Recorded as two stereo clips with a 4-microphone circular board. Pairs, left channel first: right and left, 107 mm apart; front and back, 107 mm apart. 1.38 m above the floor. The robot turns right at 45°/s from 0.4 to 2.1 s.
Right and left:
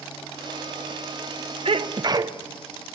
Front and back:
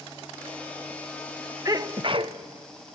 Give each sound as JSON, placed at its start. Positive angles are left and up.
{"t": 1.6, "sound": "a sneeze", "azimuth_deg": 120, "distance_m": 1.0}